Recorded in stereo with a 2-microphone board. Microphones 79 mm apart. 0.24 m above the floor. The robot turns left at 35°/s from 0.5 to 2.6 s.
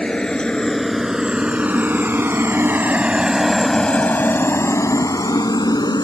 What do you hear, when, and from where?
0.0 s a helicopter: 10° left (ahead or behind); by 6.0 s 60° left (ahead or behind)